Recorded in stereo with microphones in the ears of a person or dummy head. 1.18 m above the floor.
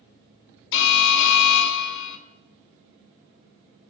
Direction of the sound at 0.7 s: 65° left (ahead or behind).